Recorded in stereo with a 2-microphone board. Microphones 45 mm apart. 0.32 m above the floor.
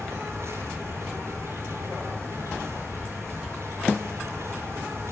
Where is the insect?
75° right (ahead or behind), 9 m.